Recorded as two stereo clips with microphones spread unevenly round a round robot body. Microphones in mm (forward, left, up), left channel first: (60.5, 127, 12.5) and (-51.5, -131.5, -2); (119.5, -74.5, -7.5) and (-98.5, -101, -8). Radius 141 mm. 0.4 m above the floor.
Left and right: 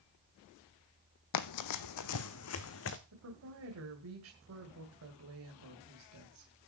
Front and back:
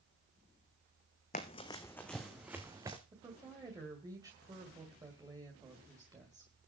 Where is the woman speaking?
105° right, 2 m.